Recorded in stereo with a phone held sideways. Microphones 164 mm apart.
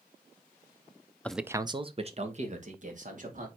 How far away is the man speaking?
About 0.6 m.